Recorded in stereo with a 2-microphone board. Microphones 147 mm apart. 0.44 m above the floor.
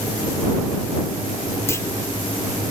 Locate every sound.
1.7 s a clunk: 20° left (ahead or behind)